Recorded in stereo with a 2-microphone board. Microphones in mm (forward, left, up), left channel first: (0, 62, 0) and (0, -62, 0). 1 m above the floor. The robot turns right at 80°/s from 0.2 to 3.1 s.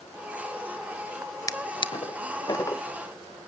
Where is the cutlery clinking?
No cutlery clinking in this recording.